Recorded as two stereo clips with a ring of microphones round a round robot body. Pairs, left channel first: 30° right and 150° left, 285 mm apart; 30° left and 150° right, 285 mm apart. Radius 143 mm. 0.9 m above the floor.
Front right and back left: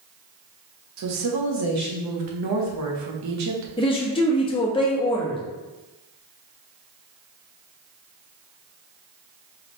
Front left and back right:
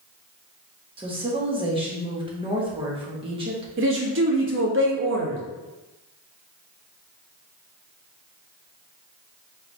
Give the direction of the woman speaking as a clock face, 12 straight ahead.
7 o'clock.